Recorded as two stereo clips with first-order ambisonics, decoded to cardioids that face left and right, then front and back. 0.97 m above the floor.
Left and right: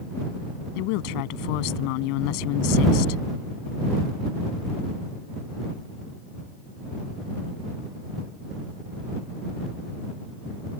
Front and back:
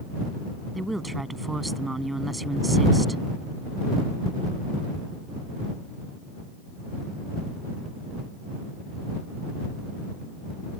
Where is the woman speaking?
95° left.